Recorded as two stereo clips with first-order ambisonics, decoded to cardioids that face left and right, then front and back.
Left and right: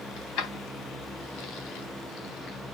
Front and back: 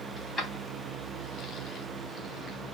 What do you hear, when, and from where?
0.2 s keys jangling: 90° left, 3 m; by 2.6 s 70° left, 4 m